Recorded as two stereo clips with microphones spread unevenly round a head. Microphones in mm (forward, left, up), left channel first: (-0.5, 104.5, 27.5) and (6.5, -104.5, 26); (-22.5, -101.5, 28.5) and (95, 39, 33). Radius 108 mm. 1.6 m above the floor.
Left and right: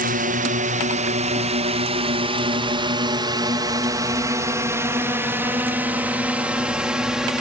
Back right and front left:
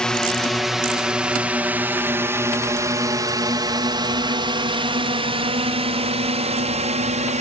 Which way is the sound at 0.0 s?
45° right.